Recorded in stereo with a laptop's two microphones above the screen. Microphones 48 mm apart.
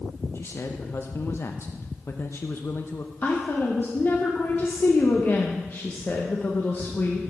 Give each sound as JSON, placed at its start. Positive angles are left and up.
{"t": 0.3, "sound": "a man speaking", "side_deg": 50, "distance_m": 0.6}
{"t": 3.2, "sound": "a woman speaking", "side_deg": 40, "distance_m": 0.9}